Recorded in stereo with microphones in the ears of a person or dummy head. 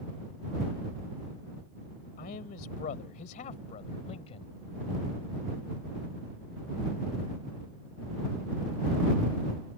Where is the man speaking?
55° left (ahead or behind); by 4.5 s 35° left (ahead or behind).